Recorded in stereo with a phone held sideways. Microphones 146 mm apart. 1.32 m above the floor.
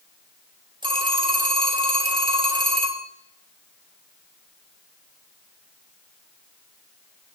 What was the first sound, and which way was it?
A phone ringing, 35° right (ahead or behind).